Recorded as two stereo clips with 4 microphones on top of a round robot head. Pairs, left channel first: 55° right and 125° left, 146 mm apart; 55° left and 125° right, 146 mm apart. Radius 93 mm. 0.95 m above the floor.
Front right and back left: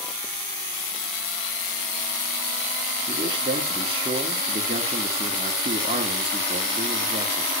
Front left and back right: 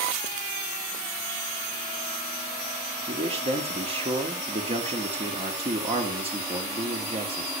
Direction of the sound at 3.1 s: 175° right.